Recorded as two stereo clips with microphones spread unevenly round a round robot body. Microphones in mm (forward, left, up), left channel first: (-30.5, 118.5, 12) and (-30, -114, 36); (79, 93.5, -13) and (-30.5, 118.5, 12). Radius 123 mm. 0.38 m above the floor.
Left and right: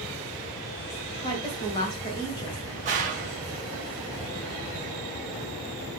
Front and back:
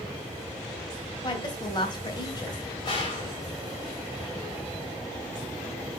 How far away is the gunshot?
About 1.9 m.